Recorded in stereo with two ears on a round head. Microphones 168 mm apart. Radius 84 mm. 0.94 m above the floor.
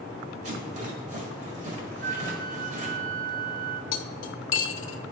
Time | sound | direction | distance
0.4 | a rattle | 40° right (ahead or behind) | 1.9 m
2.0 | a flute | 45° right (ahead or behind) | 0.9 m
3.9 | cutlery clinking | 75° left (ahead or behind) | 0.8 m